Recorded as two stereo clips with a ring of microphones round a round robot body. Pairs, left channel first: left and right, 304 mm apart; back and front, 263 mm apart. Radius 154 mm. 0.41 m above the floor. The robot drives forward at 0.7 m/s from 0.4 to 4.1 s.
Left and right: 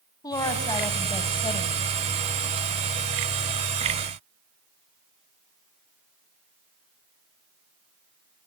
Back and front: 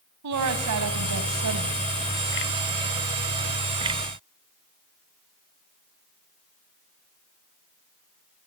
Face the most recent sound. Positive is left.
turn(degrees=90)